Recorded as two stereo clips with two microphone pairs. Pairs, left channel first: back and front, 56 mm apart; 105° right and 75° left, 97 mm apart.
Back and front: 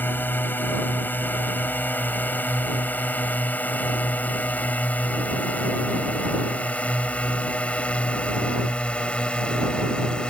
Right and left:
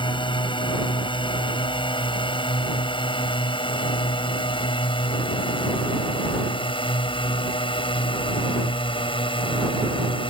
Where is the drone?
130° right; by 10.3 s 110° right.